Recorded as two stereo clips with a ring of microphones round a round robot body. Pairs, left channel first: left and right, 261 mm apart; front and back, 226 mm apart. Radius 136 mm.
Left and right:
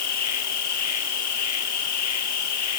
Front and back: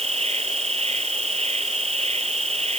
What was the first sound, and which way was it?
An insect, 115° left.